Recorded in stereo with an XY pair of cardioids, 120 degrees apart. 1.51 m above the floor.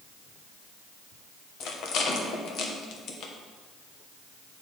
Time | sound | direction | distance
1.6 | a rattle | 70° left | 1.3 m